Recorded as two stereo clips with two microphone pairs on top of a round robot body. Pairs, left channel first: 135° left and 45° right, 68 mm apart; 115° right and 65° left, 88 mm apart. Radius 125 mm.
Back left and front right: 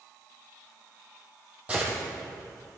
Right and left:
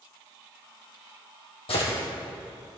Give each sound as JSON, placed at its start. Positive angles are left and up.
{"t": 1.7, "sound": "a gunshot", "azimuth_deg": -120, "distance_m": 3.5}